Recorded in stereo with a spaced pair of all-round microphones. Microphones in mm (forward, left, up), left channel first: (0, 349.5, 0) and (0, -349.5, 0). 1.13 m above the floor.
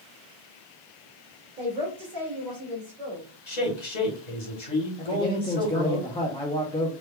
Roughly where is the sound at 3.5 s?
Left.